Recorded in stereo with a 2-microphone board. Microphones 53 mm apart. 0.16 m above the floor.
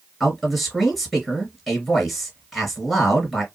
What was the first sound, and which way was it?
A man speaking, centre (ahead or behind).